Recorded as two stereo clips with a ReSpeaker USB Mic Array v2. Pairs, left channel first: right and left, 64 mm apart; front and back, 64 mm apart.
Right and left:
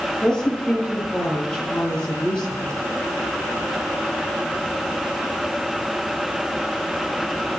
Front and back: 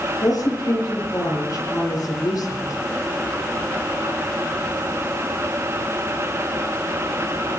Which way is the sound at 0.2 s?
15° right.